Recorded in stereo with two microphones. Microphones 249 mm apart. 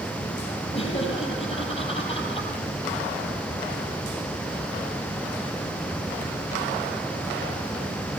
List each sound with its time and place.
0.7 s laughter: 25° left (ahead or behind), 7.5 m